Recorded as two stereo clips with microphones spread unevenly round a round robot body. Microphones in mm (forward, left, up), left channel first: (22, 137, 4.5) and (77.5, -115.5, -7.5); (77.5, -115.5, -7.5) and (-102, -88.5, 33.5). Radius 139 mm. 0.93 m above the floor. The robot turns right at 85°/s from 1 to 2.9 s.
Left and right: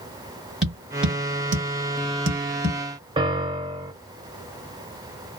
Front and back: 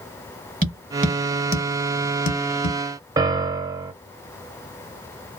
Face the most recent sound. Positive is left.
turn(degrees=-145)